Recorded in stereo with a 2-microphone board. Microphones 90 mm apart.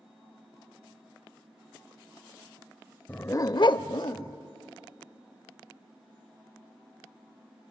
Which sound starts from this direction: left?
A dog barking, at 3.1 s.